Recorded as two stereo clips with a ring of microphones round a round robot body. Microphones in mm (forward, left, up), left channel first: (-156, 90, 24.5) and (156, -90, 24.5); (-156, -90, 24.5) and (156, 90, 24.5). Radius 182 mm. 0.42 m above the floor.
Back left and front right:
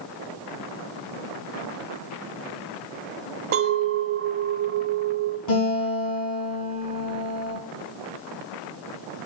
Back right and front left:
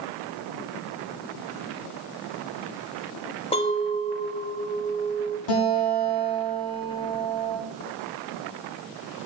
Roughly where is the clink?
Right.